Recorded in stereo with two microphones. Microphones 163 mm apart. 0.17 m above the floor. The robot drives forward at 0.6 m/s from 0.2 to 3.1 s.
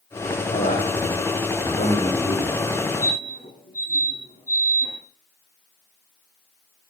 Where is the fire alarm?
65° left (ahead or behind), 9.5 m.